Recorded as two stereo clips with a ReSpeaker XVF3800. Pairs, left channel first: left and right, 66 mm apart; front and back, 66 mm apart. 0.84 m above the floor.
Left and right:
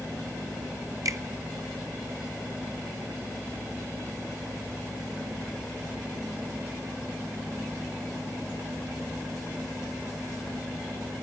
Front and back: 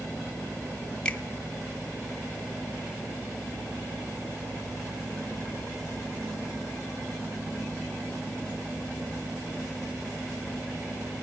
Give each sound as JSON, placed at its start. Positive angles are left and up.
{"t": 1.1, "sound": "a finger snap", "azimuth_deg": -70, "distance_m": 1.4}